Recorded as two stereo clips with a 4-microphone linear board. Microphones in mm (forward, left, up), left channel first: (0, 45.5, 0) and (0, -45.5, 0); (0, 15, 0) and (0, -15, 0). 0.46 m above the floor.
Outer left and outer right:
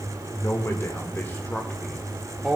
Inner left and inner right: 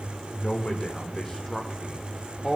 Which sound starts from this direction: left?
A man speaking, at 0.3 s.